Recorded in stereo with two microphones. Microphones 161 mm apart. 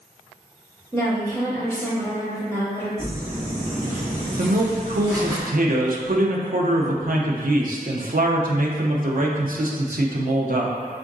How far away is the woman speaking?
About 1.5 m.